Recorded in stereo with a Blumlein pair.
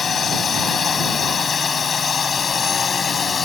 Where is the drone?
20° left.